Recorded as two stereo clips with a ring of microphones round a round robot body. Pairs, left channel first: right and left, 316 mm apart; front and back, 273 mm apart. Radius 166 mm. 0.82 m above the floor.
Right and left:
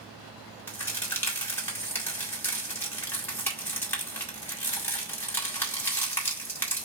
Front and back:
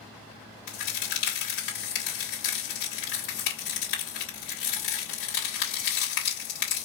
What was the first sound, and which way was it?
A crack, 5° right.